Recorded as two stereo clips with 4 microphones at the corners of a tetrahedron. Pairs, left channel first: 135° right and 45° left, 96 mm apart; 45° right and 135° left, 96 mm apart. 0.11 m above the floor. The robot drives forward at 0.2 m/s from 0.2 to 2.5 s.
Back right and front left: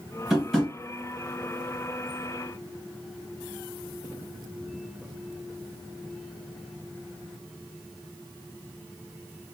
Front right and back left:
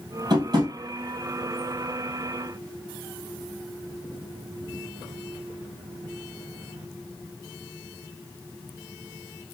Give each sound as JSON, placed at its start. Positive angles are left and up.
{"t": 0.3, "sound": "tapping", "azimuth_deg": 130, "distance_m": 1.7}